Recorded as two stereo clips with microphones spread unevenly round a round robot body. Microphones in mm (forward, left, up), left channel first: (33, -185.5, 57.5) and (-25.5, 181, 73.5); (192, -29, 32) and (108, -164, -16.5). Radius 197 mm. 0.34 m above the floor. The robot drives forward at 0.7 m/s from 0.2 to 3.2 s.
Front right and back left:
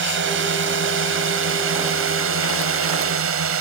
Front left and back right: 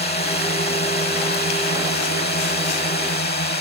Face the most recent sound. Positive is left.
turn(degrees=50)